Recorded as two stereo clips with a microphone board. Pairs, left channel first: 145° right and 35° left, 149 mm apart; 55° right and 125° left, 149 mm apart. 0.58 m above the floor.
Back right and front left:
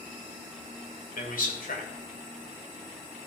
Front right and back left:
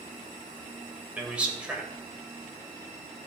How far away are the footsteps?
I don't hear footsteps.